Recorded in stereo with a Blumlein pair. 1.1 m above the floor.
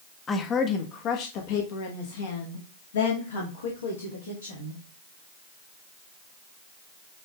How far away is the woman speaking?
About 1.3 m.